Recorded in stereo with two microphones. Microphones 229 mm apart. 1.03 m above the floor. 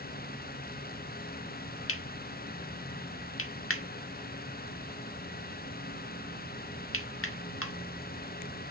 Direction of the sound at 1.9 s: 70° left (ahead or behind).